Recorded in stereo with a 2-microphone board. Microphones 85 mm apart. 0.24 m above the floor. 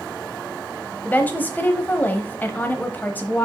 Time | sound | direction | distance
1.1 | a woman speaking | 20° left (ahead or behind) | 0.9 m